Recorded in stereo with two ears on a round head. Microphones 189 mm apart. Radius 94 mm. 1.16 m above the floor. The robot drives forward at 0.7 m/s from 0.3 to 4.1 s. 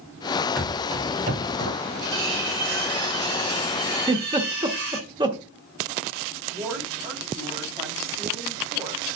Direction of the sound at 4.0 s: 20° right (ahead or behind).